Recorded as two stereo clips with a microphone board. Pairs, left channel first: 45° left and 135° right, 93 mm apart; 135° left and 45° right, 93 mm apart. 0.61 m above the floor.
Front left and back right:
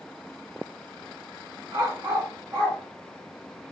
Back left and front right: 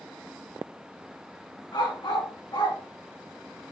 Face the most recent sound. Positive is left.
turn(degrees=165)